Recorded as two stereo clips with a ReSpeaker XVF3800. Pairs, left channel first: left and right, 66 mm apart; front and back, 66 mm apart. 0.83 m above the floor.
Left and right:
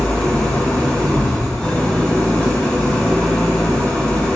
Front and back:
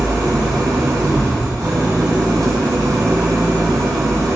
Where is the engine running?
165° left, 1.5 m.